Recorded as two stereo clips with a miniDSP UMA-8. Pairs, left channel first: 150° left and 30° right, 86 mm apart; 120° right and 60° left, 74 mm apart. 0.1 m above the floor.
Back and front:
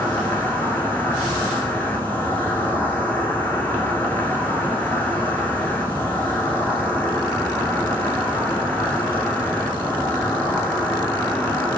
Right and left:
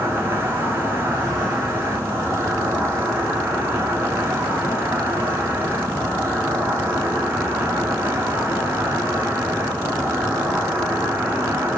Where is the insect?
95° left, 0.9 m.